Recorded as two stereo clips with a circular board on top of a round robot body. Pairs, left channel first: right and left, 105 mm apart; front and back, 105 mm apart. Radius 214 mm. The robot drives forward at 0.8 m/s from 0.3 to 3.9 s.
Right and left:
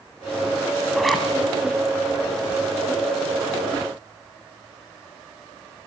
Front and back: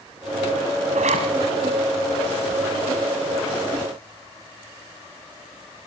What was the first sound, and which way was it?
A zipper, straight behind.